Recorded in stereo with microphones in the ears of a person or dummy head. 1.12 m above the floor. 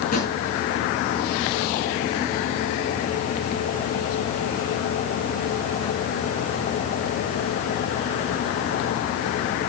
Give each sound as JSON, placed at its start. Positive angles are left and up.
{"t": 0.1, "sound": "a drawer", "side_deg": 55, "distance_m": 4.5}